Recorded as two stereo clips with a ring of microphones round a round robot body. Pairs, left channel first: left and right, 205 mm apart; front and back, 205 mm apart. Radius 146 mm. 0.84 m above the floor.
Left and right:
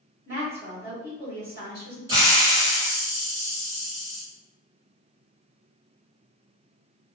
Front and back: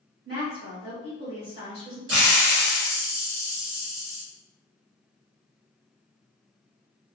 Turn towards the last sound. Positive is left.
turn(degrees=-165)